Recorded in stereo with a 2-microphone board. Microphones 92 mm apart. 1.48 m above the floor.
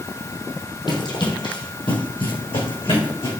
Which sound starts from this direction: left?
Running footsteps, at 0.9 s.